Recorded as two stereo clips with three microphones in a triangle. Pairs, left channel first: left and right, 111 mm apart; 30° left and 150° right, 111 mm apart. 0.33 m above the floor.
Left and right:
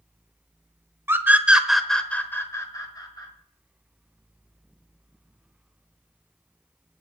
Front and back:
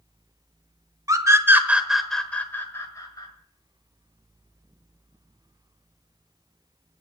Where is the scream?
140° right, 1.3 m; by 3.3 s 65° left, 1.6 m.